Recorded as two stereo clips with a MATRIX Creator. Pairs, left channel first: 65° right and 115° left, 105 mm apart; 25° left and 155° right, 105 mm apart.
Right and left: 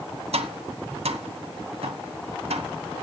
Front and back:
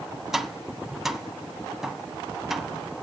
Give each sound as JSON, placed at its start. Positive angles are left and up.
{"t": 0.3, "sound": "tapping", "azimuth_deg": 115, "distance_m": 0.9}